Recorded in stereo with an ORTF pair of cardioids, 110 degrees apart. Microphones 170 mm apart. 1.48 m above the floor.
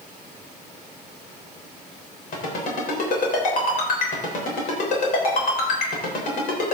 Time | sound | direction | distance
2.3 | a ringtone | 55° left | 3.5 m